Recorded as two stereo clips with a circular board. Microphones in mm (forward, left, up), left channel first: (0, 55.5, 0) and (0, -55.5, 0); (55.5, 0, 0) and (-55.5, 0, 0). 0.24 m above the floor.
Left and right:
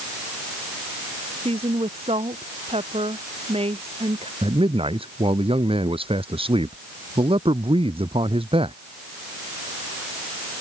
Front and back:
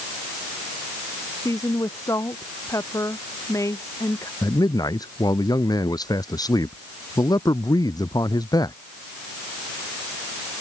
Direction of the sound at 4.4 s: 55° right.